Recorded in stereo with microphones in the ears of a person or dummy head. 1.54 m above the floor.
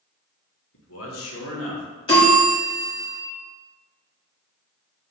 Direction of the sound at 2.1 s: 30° left (ahead or behind).